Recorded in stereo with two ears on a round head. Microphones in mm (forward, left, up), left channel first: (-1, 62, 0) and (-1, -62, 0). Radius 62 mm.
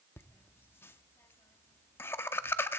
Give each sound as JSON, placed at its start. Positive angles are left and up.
{"t": 0.2, "sound": "laughter", "side_deg": 15, "distance_m": 0.7}